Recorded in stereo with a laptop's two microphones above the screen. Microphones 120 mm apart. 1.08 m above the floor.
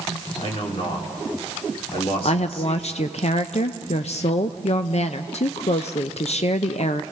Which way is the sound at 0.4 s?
55° left (ahead or behind).